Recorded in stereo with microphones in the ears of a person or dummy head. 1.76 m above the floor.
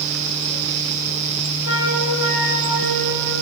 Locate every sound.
1.6 s a flute: 75° left (ahead or behind), 3.5 m